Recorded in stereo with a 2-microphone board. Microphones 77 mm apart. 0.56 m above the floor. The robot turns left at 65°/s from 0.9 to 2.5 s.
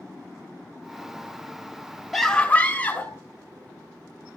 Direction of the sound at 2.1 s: Centre (ahead or behind).